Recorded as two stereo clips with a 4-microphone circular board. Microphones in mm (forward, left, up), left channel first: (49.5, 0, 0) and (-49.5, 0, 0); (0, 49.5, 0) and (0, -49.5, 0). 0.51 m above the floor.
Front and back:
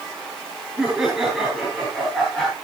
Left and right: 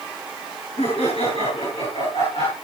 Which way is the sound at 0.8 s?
95° left.